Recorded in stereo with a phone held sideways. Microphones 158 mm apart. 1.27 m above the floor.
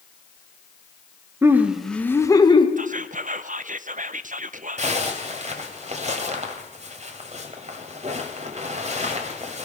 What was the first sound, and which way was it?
Laughter, 15° right (ahead or behind).